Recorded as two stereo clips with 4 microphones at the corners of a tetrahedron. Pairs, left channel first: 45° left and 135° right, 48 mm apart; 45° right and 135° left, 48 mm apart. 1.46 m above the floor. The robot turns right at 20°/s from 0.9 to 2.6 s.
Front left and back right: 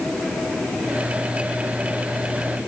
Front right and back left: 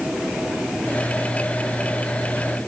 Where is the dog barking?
I don't hear a dog barking.